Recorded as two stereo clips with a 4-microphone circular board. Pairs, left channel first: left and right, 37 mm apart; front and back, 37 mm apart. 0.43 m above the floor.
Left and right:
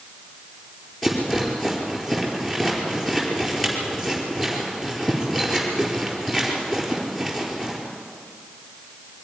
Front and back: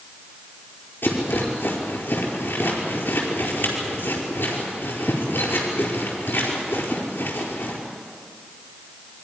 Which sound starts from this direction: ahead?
A rattle, at 1.0 s.